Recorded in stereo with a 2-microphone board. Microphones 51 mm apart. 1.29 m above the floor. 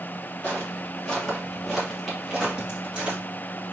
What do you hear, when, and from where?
0.4 s footsteps: 25° left (ahead or behind), 1.8 m; by 3.2 s 25° right (ahead or behind), 1.9 m